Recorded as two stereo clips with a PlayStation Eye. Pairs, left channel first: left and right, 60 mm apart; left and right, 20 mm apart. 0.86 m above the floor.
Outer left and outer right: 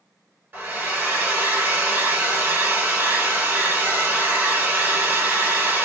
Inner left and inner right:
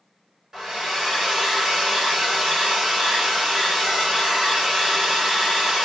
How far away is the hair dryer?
About 1.7 m.